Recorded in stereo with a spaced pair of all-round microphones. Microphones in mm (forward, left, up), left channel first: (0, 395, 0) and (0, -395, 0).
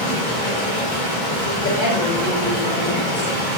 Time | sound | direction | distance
0.0 | running water | 80° left | 1.3 m
1.6 | a woman speaking | 70° left (ahead or behind) | 1.1 m